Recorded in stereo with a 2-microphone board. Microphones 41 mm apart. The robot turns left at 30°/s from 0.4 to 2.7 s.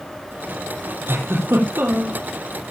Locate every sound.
1.1 s a giggle: 100° right, 4 m; by 2.2 s 135° right, 4 m